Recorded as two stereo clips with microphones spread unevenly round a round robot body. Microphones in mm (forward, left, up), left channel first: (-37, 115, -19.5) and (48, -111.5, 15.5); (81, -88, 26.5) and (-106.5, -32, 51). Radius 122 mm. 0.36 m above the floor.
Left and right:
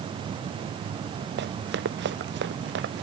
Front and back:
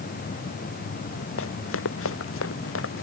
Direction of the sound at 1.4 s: 20° right.